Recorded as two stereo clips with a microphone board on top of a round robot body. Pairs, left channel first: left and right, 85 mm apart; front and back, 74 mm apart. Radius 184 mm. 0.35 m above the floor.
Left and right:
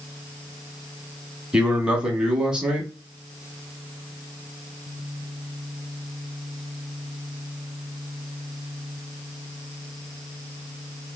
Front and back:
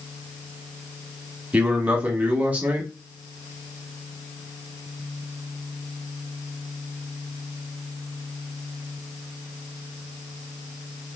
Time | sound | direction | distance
1.5 | a man speaking | 155° right | 1.4 m